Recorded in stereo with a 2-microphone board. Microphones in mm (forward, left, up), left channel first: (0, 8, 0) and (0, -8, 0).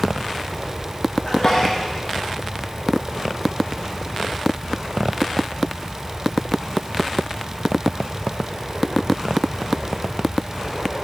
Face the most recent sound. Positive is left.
turn(degrees=40)  # may be behind; listen again after turning